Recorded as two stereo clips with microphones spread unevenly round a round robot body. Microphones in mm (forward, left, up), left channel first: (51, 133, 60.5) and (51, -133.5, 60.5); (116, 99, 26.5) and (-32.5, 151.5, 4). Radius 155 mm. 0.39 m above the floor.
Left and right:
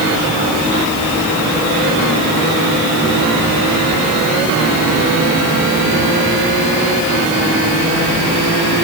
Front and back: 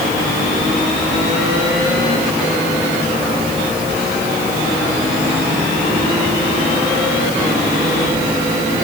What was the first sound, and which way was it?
Only background noise.